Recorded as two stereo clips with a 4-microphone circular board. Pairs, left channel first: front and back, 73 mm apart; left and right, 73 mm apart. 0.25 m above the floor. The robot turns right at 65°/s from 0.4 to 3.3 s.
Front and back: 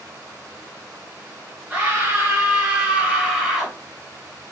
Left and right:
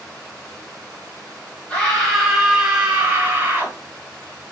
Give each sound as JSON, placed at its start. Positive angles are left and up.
{"t": 1.7, "sound": "a scream", "azimuth_deg": 145, "distance_m": 1.3}